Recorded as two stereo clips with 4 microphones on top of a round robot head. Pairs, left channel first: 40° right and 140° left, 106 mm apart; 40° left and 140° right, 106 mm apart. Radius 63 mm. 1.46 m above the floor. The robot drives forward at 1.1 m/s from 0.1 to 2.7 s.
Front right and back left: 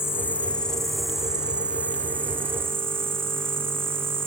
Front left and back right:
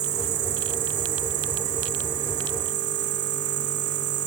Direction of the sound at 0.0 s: 110° right.